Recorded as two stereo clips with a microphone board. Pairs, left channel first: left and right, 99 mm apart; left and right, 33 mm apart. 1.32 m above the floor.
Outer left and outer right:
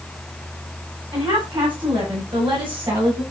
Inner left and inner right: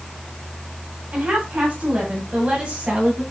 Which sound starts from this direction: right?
A woman speaking, at 1.1 s.